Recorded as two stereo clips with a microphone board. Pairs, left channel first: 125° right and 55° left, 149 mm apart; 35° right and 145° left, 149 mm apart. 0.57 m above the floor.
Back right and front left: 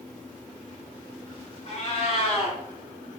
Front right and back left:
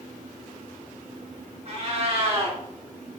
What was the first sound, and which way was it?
A cat meowing, 170° right.